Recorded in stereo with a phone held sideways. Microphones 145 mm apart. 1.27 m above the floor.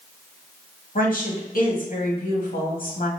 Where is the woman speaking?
75° left (ahead or behind), 1.7 m.